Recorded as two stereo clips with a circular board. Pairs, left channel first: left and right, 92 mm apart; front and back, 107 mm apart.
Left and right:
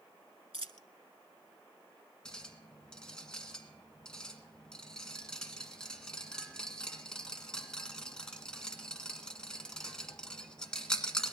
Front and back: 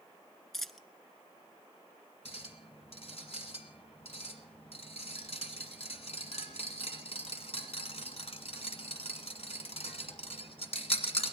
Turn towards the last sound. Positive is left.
turn(degrees=10)